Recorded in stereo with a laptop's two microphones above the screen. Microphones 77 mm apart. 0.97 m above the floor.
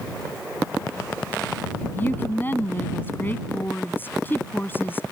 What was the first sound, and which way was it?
A woman speaking, 25° left (ahead or behind).